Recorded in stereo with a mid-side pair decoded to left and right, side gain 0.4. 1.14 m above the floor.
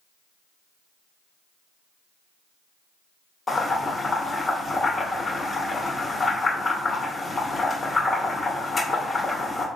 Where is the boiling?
30° left, 1.9 m.